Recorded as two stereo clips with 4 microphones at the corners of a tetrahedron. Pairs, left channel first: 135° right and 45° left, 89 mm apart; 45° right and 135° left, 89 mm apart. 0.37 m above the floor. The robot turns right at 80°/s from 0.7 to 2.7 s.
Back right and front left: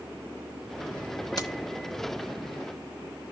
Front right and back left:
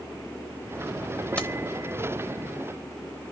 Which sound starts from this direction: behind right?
Keys jangling, at 1.4 s.